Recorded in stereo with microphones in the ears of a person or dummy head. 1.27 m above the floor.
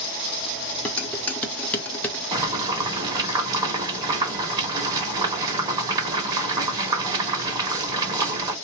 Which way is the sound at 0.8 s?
10° left (ahead or behind).